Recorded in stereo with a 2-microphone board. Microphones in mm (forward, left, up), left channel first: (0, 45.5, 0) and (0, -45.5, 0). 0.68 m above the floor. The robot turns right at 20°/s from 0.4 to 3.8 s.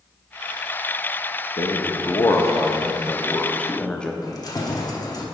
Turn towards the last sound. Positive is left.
turn(degrees=40)  # may be behind; listen again after turning